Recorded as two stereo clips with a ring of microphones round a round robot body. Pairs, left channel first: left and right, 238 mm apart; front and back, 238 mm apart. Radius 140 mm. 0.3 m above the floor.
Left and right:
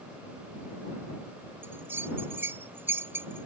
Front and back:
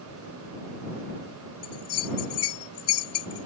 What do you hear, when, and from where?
1.6 s a bell: 10° right